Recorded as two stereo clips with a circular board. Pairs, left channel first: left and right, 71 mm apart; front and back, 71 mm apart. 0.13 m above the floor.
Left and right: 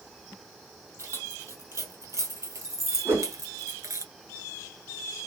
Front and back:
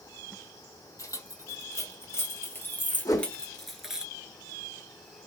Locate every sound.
1.0 s keys jangling: 40° right, 3 m; by 4.0 s 105° right, 1.3 m
3.0 s a whoosh: 35° right, 3 m